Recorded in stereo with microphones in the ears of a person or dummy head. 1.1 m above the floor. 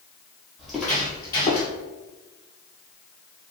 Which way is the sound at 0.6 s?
Centre (ahead or behind).